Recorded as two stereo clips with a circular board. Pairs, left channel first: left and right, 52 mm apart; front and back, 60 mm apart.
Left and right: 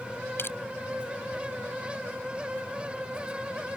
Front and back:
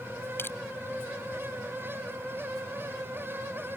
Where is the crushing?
50° left.